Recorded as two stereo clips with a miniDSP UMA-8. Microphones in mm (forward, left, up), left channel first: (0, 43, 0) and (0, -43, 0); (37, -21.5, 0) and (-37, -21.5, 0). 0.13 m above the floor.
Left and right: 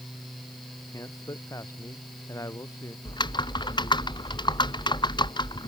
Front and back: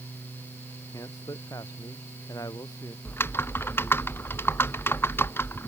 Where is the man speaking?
40° left.